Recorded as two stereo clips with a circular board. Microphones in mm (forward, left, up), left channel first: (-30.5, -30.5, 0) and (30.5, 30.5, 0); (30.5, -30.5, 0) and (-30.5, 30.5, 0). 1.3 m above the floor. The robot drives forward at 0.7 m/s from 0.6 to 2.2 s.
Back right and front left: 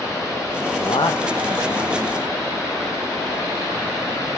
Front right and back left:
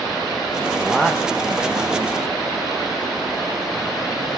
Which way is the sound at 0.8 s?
125° right.